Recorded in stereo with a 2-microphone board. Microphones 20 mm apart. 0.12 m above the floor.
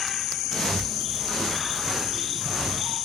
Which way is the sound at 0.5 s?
20° left (ahead or behind).